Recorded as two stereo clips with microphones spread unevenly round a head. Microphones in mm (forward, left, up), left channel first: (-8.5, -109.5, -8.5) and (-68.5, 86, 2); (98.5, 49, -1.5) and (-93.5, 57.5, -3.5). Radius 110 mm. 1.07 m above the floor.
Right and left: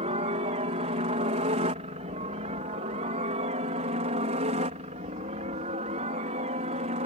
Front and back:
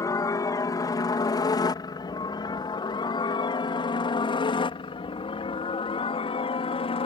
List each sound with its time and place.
0.0 s a helicopter: 60° left; by 7.1 s 50° left